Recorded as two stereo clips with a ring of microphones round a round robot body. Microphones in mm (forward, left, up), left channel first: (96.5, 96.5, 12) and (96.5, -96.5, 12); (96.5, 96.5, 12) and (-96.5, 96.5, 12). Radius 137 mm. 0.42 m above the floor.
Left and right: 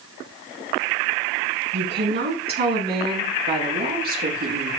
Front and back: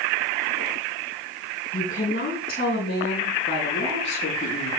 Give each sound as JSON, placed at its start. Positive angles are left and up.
{"t": 1.7, "sound": "a woman speaking", "azimuth_deg": -65, "distance_m": 4.0}